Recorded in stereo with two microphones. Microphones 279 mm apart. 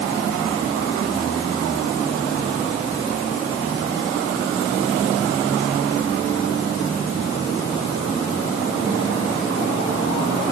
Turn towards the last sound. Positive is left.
No sound to turn to.